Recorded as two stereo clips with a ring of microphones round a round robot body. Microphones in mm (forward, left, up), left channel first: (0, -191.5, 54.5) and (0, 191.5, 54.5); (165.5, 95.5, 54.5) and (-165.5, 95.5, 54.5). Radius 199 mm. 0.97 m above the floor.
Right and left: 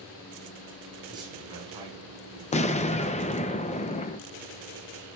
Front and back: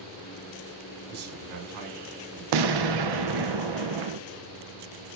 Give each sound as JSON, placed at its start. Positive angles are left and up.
{"t": 1.1, "sound": "a man speaking", "azimuth_deg": 170, "distance_m": 4.5}
{"t": 2.5, "sound": "an explosion", "azimuth_deg": -165, "distance_m": 0.5}